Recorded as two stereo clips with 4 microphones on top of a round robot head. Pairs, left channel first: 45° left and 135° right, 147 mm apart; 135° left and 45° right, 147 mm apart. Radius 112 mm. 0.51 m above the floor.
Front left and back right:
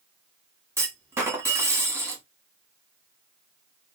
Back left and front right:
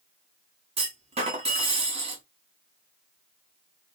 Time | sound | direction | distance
0.8 | a clunk | 70° right | 1.2 m